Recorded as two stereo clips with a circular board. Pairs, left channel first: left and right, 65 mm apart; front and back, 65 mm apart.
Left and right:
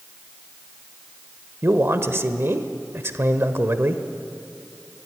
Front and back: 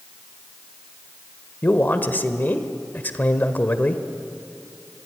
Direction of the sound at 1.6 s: 55° right.